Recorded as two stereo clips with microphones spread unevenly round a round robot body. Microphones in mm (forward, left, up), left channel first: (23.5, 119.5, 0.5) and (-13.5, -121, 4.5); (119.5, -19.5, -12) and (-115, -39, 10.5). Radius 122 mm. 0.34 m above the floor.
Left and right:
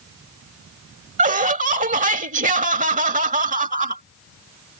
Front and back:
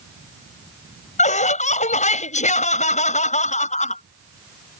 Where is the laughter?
45° right.